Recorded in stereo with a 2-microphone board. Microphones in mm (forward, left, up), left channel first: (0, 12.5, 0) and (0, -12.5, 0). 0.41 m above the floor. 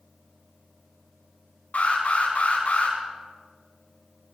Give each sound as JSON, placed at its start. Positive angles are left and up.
{"t": 1.7, "sound": "an alarm", "side_deg": 75, "distance_m": 5.5}